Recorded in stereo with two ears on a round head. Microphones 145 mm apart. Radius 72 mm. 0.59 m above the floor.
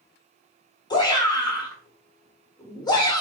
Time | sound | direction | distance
0.9 | a shout | 25° left (ahead or behind) | 1.1 m